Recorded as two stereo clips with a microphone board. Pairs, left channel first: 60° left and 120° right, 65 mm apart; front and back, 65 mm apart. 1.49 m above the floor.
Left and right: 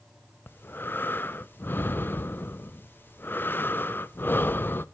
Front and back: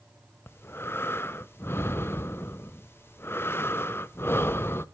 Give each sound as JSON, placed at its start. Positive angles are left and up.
{"t": 0.5, "sound": "breathing", "azimuth_deg": 20, "distance_m": 0.5}